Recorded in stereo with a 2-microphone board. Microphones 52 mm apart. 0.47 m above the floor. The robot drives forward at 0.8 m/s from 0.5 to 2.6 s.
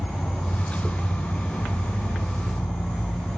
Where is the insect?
60° left (ahead or behind), 2.5 m; by 3.4 s 75° left (ahead or behind), 2.5 m.